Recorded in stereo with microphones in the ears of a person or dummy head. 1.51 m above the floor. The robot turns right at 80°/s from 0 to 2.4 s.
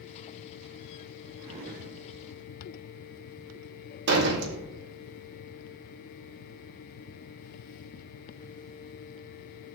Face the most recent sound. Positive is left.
turn(degrees=-55)  # may be behind; listen again after turning